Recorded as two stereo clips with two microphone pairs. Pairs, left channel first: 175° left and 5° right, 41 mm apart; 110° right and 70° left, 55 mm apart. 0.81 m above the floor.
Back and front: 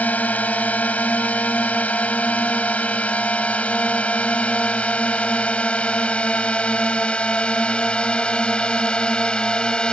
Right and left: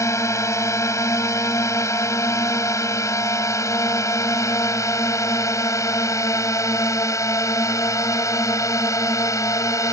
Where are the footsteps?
I don't hear footsteps.